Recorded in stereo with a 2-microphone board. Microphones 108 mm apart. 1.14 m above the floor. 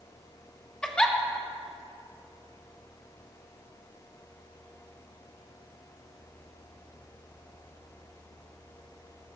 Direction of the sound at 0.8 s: 10° left (ahead or behind).